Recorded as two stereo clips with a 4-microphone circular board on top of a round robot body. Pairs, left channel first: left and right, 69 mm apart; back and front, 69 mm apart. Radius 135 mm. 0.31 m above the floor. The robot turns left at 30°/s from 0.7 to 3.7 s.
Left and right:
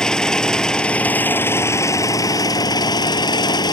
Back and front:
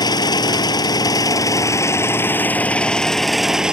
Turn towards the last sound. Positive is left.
turn(degrees=80)